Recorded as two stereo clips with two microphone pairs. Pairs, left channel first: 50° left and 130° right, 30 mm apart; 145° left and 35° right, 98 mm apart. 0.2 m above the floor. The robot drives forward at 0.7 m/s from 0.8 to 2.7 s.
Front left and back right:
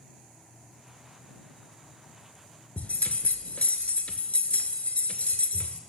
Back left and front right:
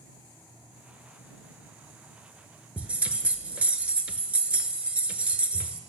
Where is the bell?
35° left, 0.5 m.